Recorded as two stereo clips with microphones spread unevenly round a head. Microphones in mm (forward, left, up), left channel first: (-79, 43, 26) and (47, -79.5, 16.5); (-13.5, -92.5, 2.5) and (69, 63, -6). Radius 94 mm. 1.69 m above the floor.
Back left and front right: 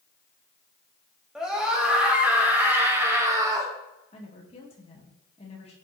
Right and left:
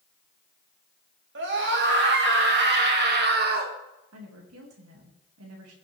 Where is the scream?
45° left, 3 m; by 3.8 s 30° left, 2 m.